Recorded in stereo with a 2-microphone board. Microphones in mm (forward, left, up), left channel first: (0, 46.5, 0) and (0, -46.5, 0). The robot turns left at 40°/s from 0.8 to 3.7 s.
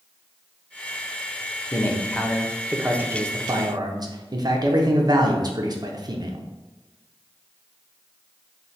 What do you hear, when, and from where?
1.7 s a man speaking: 30° left, 0.7 m; by 6.4 s 50° right, 0.7 m